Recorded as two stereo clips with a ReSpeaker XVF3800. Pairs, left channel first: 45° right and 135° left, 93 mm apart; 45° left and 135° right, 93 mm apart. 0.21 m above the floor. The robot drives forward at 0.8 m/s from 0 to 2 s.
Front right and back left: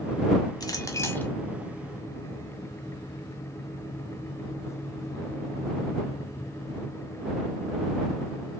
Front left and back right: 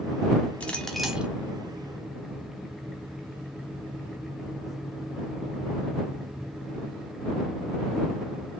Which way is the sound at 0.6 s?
25° right.